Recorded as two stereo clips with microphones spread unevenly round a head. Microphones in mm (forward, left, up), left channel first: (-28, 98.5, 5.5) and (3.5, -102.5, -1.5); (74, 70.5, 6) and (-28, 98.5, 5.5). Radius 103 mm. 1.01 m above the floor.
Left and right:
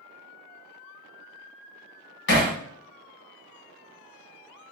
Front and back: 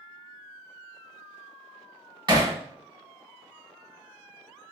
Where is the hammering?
125° left, 1.1 m.